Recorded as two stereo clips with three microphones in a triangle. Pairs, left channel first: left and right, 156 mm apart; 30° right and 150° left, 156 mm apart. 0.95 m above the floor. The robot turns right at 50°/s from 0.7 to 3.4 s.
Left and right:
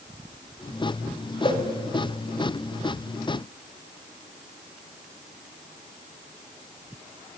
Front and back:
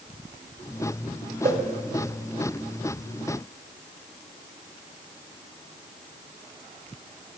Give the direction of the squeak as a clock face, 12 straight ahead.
I don't hear a squeak.